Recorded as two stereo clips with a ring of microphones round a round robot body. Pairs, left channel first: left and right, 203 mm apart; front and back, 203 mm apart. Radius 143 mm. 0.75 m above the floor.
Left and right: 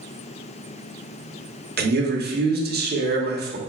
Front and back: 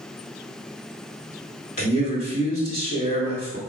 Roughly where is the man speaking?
Ahead right.